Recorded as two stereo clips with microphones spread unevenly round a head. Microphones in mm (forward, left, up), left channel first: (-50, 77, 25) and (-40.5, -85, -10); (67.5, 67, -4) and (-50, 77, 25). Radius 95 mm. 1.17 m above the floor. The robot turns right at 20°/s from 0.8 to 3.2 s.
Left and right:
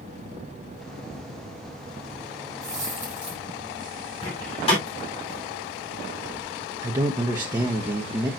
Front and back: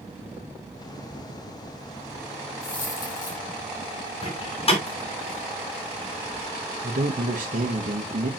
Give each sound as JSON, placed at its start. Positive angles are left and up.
{"t": 2.6, "sound": "a dropped coin", "azimuth_deg": -10, "distance_m": 3.5}
{"t": 4.2, "sound": "a door slam", "azimuth_deg": 30, "distance_m": 3.0}
{"t": 6.8, "sound": "a man speaking", "azimuth_deg": -145, "distance_m": 0.9}